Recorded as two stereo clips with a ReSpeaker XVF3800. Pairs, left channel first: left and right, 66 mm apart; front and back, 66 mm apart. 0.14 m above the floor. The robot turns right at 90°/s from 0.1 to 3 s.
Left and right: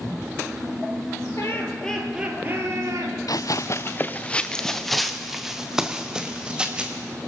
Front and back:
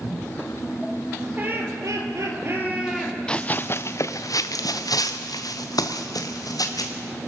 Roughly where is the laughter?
Behind left.